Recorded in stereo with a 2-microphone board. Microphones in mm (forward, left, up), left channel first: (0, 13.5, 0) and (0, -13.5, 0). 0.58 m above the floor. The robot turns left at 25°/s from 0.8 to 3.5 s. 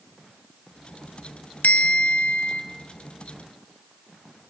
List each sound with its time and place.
1.6 s a bell: 70° left (ahead or behind), 1.5 m; by 2.6 s 85° left, 1.5 m